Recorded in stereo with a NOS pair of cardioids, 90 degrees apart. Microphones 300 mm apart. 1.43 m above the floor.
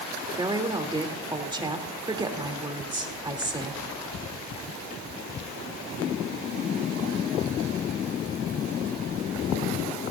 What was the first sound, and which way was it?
A woman speaking, 15° right.